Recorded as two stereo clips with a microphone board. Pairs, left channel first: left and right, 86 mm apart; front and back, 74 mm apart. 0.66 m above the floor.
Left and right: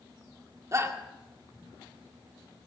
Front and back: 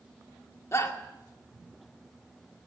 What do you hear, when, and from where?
0.7 s a shout: 45° right, 1.9 m